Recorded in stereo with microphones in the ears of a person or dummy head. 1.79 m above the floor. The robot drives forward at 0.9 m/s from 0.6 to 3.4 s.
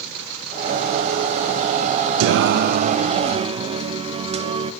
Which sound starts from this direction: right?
Singing, at 2.2 s.